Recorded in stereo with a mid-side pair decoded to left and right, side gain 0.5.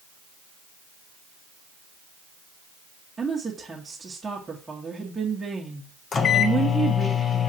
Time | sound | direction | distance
3.2 | a woman speaking | 20° right | 1.7 m
6.1 | a microwave | 40° left | 1.1 m